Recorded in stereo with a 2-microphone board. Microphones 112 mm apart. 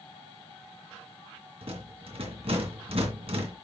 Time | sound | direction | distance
1.6 | a rattle | 60° right (ahead or behind) | 2.5 m